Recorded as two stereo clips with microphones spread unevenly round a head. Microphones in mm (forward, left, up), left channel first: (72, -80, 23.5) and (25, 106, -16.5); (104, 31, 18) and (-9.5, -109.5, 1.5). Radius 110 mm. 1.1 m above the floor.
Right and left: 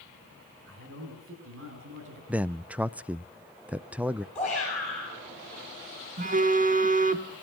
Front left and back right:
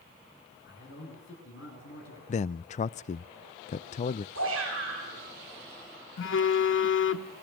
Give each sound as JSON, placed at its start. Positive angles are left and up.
{"t": 0.7, "sound": "a man speaking", "azimuth_deg": 95, "distance_m": 9.5}
{"t": 2.3, "sound": "a man speaking", "azimuth_deg": 50, "distance_m": 0.5}
{"t": 4.3, "sound": "a shout", "azimuth_deg": -165, "distance_m": 10.0}
{"t": 6.2, "sound": "a phone buzzing", "azimuth_deg": 55, "distance_m": 1.4}